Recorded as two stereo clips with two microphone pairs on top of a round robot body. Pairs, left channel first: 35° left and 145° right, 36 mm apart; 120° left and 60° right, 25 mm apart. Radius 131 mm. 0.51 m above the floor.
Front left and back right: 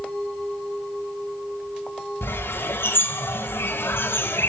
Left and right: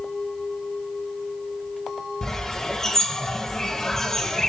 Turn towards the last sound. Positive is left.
turn(degrees=45)